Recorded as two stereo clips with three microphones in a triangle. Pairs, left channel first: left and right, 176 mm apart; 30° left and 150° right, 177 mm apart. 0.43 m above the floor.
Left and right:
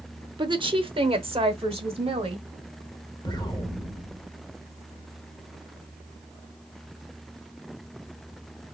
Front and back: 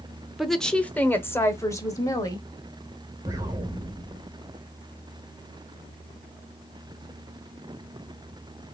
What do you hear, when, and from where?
0.4 s a woman speaking: 60° right, 0.8 m; by 2.5 s 35° right, 1.7 m
3.2 s an explosion: 145° left, 1.3 m